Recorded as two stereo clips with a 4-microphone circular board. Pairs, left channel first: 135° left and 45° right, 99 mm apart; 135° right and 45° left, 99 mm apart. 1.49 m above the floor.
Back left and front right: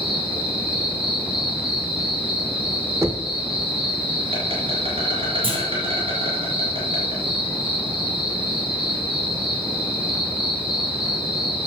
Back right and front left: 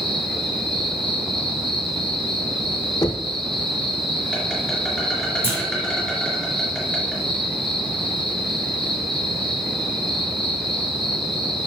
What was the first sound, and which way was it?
An insect, 45° right.